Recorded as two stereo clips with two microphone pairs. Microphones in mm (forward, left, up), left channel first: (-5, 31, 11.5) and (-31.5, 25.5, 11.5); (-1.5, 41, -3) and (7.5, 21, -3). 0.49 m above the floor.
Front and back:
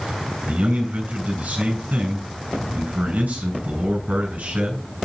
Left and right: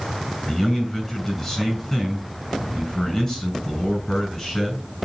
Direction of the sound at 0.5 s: 175° right.